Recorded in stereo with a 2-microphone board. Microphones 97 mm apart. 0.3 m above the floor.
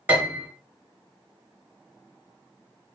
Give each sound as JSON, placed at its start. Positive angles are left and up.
{"t": 0.1, "sound": "a piano", "side_deg": -20, "distance_m": 1.1}